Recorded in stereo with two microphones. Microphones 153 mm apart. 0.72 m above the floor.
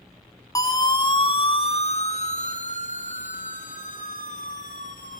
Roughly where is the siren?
Left.